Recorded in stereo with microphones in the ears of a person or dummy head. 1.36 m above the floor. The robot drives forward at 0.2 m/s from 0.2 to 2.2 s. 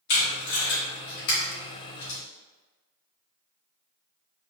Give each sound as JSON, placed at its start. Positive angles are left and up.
{"t": 0.1, "sound": "tape being pulled", "side_deg": 65, "distance_m": 1.7}